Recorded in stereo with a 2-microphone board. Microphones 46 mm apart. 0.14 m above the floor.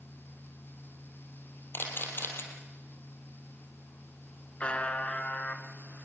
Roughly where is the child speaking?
I don't hear a child speaking.